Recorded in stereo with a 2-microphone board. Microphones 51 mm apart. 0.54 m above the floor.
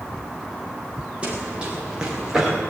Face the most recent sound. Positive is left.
turn(degrees=-10)  # may be behind; listen again after turning